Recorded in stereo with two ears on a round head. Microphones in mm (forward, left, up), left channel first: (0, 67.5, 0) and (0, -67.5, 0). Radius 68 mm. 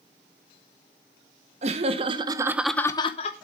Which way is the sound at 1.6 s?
45° right (ahead or behind).